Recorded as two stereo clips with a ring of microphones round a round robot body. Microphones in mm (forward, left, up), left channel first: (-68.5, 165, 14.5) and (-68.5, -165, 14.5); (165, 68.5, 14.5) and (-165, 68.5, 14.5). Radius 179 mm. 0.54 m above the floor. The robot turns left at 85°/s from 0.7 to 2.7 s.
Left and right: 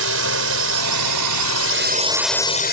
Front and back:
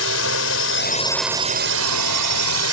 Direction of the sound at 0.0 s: 45° right.